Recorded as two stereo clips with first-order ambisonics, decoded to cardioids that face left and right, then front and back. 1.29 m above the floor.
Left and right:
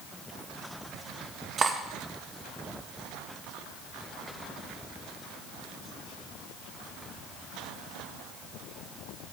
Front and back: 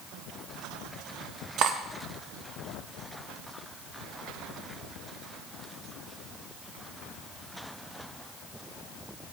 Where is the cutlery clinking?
150° right, 0.6 m.